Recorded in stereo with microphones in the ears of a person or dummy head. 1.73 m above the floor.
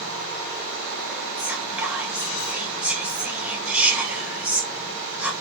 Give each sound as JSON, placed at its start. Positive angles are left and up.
{"t": 1.4, "sound": "whispering", "side_deg": -10, "distance_m": 0.7}